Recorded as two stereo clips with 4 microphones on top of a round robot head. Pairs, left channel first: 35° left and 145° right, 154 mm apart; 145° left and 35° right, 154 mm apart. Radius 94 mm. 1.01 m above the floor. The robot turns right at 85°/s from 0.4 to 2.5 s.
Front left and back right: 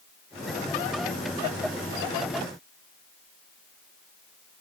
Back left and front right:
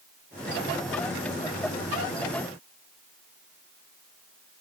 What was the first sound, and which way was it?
Only background noise.